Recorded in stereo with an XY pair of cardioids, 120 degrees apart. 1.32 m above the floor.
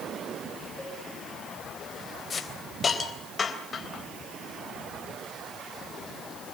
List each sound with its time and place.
0.8 s a cowbell: 15° left, 7.5 m
2.3 s a hiss: 35° left, 3.5 m